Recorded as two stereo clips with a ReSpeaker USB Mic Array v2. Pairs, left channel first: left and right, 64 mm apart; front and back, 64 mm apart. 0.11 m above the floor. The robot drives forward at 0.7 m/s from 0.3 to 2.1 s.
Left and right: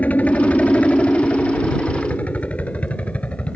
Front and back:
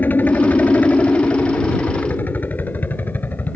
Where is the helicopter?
40° left; by 3.6 s 35° left.